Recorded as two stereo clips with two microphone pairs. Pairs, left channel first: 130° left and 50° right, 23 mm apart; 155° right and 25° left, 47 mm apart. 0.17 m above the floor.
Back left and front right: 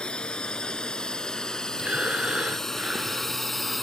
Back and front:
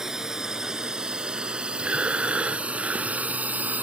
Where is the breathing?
40° right.